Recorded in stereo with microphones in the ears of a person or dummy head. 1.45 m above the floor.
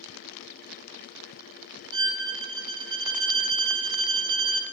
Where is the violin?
25° right (ahead or behind), 2 m.